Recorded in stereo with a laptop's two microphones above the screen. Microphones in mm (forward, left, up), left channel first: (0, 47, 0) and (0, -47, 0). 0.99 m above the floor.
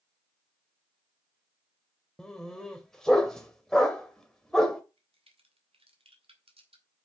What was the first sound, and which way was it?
A dog barking, 5° left (ahead or behind).